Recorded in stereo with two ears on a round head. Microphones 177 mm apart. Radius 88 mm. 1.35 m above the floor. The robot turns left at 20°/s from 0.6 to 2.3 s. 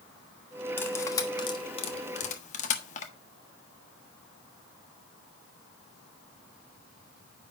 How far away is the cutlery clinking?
About 1.2 m.